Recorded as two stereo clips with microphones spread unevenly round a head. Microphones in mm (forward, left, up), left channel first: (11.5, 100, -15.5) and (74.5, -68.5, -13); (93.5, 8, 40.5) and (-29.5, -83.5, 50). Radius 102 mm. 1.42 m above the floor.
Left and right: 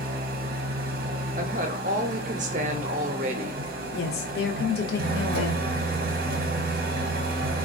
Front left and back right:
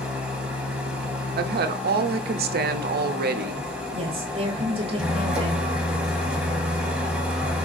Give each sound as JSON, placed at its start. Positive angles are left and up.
{"t": 0.0, "sound": "an engine running", "azimuth_deg": -60, "distance_m": 0.7}
{"t": 1.4, "sound": "a woman speaking", "azimuth_deg": -125, "distance_m": 0.5}
{"t": 3.9, "sound": "a woman speaking", "azimuth_deg": 155, "distance_m": 0.6}